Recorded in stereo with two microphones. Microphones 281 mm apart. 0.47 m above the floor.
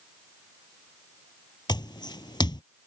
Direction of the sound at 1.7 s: 15° left (ahead or behind).